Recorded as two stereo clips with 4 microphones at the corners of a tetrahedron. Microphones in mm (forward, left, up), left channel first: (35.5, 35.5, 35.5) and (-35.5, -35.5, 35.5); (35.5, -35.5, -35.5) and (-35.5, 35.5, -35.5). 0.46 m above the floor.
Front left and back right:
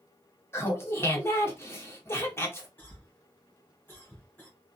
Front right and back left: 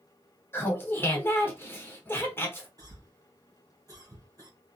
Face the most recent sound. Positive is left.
turn(degrees=110)